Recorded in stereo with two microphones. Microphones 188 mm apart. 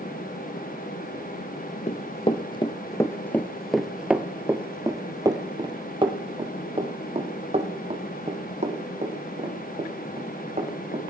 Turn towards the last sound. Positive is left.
turn(degrees=-40)  # may be behind; listen again after turning